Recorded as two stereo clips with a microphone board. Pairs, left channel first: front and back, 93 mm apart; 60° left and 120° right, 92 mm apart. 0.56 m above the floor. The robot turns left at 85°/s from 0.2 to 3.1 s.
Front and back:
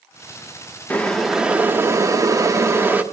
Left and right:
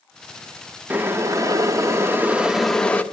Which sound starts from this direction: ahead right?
Boiling, at 0.9 s.